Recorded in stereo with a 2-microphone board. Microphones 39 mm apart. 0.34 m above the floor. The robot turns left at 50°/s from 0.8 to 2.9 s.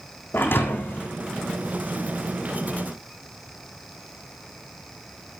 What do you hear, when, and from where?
0.3 s a thud: 60° left (ahead or behind), 3.5 m; by 1.1 s 75° left (ahead or behind), 3.5 m